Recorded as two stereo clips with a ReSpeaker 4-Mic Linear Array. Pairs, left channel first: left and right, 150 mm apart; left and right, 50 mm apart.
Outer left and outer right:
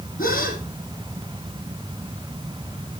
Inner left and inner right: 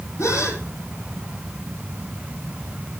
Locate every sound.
0.2 s a gasp: 75° left (ahead or behind), 5 m